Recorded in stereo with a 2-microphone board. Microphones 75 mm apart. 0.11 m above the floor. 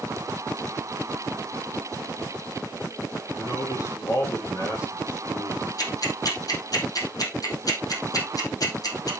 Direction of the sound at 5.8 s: 50° left (ahead or behind).